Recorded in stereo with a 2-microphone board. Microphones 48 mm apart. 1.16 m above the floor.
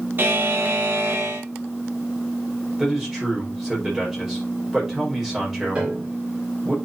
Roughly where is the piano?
Right.